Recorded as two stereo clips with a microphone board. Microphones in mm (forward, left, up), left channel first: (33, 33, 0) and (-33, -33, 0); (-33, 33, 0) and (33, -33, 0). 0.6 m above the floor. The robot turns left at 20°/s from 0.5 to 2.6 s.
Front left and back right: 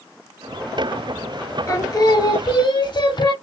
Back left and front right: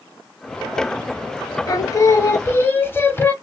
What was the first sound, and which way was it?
Singing, 95° left.